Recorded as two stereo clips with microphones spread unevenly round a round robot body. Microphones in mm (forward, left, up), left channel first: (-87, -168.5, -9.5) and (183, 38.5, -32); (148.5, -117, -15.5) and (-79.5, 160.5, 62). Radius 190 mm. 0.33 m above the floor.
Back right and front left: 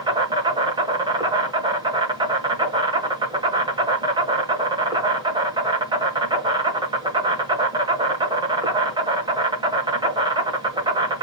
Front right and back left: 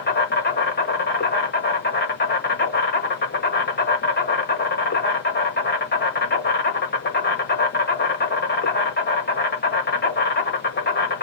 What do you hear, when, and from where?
0.0 s an insect: 30° right, 1.2 m